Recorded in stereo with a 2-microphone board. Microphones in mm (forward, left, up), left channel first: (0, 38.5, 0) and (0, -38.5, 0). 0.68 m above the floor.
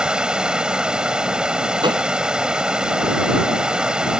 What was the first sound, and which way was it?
Running water, 10° right (ahead or behind).